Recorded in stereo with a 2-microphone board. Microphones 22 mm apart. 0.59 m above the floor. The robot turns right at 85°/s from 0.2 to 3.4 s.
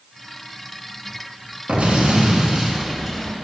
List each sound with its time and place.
1.7 s an explosion: 110° right, 1.2 m; by 3.4 s 35° left, 1.2 m